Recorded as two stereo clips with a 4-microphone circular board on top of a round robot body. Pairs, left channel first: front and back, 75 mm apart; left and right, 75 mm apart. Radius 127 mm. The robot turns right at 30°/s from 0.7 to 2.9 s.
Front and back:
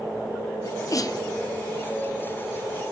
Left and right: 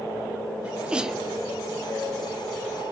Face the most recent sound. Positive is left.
turn(degrees=40)